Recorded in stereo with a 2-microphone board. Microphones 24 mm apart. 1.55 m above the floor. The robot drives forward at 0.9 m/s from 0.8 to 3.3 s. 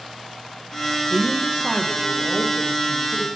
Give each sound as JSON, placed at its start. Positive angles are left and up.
{"t": 1.1, "sound": "a woman speaking", "side_deg": -45, "distance_m": 0.7}